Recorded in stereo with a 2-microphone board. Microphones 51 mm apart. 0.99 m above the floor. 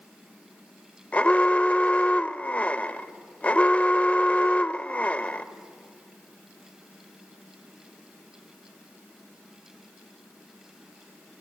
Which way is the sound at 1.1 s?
30° left (ahead or behind).